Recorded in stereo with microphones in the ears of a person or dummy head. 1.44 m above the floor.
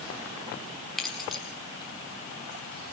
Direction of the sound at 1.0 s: 5° left (ahead or behind).